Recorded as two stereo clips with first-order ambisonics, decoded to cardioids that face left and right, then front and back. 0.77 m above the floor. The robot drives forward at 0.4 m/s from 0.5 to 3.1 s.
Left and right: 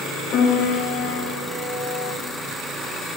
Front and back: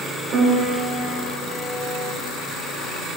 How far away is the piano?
About 1.1 m.